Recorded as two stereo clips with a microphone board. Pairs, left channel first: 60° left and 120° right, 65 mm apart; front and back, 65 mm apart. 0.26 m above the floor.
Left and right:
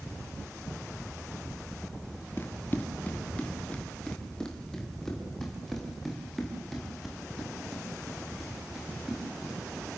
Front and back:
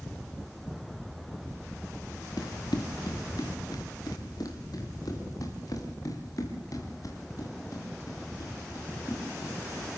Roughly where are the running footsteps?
Ahead.